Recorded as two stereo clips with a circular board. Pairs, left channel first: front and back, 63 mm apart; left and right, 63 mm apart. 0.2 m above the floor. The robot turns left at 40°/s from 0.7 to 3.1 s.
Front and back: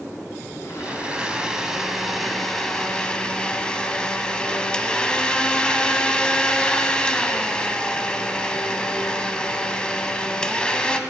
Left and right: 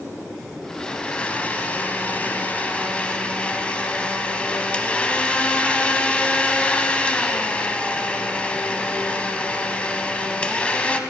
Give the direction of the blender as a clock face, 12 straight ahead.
7 o'clock.